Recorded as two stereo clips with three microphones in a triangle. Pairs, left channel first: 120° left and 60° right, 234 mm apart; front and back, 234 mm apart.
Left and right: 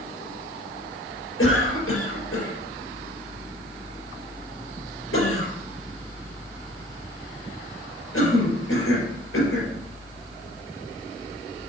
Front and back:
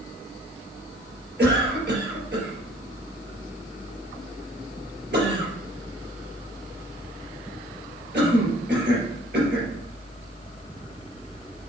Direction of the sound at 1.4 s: 140° left.